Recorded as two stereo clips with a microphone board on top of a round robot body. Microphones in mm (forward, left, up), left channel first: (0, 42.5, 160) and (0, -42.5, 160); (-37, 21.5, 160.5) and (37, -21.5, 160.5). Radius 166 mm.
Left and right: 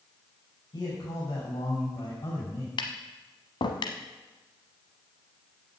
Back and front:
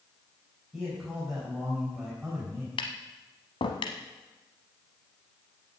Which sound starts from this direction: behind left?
Tapping, at 2.8 s.